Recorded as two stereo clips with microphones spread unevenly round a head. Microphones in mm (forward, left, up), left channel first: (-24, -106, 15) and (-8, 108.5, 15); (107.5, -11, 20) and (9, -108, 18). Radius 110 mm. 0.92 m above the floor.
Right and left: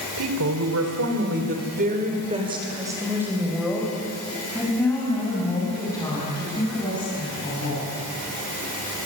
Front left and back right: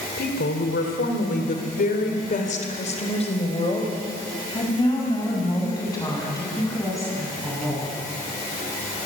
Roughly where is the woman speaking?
Left.